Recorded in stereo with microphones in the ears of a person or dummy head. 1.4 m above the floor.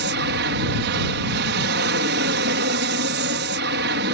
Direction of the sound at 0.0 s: 60° right (ahead or behind).